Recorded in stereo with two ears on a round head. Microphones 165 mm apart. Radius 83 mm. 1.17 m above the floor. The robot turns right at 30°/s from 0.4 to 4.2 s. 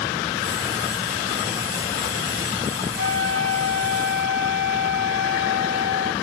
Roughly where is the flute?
Behind right.